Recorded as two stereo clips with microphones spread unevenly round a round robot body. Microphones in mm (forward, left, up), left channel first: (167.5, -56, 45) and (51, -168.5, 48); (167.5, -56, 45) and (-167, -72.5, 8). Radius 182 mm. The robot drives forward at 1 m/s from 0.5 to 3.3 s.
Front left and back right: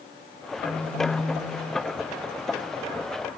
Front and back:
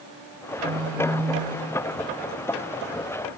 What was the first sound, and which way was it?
A phone buzzing, 115° left.